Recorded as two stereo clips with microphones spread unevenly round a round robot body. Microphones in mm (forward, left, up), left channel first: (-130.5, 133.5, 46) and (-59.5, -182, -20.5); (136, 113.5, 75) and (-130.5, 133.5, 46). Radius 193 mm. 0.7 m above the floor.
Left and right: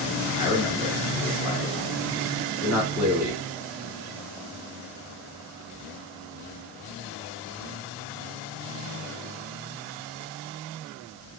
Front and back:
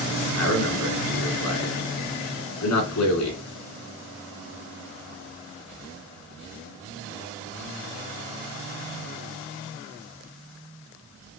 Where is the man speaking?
Straight ahead, 2.5 m.